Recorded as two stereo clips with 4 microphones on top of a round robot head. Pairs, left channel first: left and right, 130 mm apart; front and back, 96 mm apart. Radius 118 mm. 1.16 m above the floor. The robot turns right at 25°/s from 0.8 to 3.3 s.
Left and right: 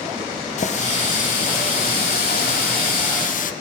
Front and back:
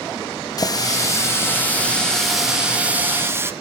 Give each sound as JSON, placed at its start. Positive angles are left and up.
{"t": 0.6, "sound": "a running tap", "azimuth_deg": 50, "distance_m": 1.1}